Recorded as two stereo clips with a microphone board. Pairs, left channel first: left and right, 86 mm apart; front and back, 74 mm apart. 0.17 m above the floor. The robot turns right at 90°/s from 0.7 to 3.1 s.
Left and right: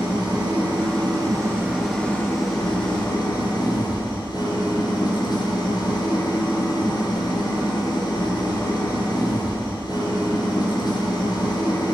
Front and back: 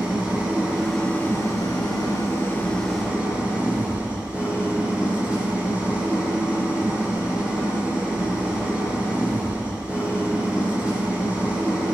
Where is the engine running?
110° right, 3 m; by 11.9 s 105° left, 3 m.